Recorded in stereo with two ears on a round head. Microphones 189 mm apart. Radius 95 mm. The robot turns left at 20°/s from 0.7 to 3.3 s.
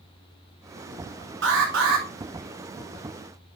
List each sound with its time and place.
1.4 s an alarm: 60° right (ahead or behind), 3 m; by 2.0 s 70° right (ahead or behind), 3 m